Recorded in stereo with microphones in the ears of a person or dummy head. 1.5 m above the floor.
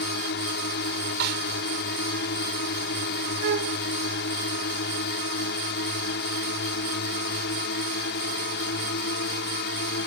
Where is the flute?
55° right (ahead or behind).